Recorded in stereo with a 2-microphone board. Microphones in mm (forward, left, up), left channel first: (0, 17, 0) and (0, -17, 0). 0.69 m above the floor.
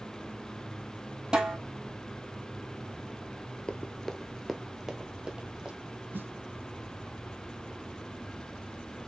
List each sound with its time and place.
1.3 s a snare drum: 25° right (ahead or behind), 3 m
3.7 s running footsteps: 30° left (ahead or behind), 0.7 m; by 5.8 s 25° right (ahead or behind), 1.8 m
6.1 s a snare drum: 80° right, 0.5 m